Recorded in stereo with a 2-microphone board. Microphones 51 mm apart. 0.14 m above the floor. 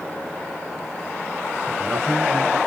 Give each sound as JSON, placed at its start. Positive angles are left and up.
{"t": 1.7, "sound": "a man speaking", "side_deg": -15, "distance_m": 2.5}